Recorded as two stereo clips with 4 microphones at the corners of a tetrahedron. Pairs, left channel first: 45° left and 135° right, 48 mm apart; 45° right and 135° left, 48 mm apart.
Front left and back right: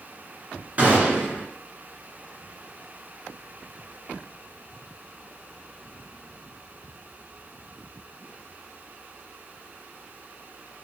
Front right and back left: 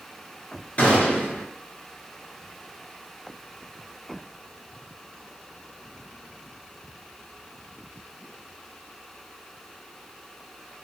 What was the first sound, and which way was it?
A gunshot, 90° right.